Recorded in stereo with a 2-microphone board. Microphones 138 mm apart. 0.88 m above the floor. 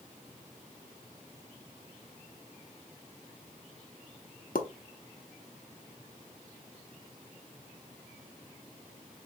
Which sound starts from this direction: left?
A pop, at 4.5 s.